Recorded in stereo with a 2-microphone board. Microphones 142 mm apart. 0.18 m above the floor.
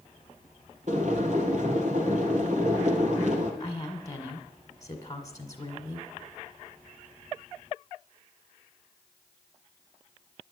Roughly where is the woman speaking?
Left.